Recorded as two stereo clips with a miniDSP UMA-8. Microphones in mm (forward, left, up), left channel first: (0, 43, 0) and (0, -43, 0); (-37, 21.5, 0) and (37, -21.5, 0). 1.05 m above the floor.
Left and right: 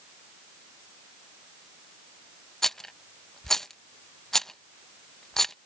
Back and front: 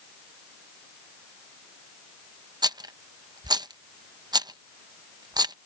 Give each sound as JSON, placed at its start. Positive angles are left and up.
{"t": 2.6, "sound": "a rattle", "azimuth_deg": 5}